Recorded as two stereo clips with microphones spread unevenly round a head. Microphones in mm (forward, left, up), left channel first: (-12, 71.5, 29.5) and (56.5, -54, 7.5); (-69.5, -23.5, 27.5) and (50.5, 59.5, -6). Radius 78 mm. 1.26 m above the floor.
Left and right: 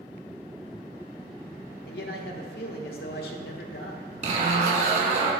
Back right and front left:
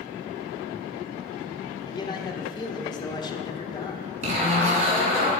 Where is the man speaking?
150° left, 1.3 m.